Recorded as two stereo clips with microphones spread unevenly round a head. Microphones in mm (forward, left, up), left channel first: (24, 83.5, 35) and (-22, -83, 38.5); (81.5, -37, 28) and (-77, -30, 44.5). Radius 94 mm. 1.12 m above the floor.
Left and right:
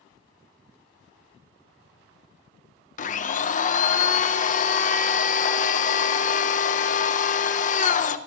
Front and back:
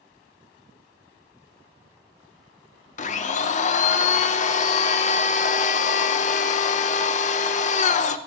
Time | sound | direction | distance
3.0 | a blender | 35° left | 1.0 m